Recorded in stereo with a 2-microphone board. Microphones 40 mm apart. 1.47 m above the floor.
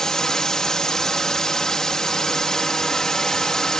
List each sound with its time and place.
0.0 s a drone: 15° left (ahead or behind)